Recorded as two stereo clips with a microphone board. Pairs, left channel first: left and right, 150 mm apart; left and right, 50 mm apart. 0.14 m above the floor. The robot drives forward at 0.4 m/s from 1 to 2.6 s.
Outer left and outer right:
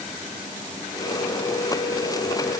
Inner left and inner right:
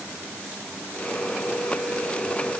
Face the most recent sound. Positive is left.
No sound to turn to.